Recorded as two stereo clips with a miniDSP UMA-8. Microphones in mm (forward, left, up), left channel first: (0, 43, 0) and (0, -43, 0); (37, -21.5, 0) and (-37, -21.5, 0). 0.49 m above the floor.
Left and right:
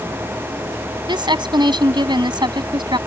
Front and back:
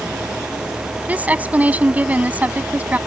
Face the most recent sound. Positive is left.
turn(degrees=-115)